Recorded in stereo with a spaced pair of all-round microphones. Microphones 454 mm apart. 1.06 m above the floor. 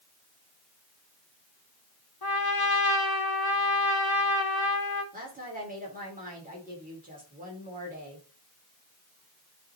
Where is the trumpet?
55° left (ahead or behind), 1.0 m.